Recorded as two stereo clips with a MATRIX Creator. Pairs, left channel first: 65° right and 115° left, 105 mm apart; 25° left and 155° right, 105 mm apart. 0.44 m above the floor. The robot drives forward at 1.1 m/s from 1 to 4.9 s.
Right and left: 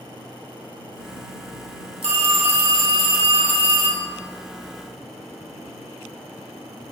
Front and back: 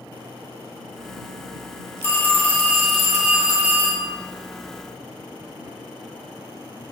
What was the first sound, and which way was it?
A phone ringing, 85° left.